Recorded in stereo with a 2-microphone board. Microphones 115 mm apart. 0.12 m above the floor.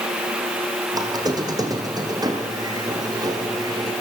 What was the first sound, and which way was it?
A squeak, 35° right (ahead or behind).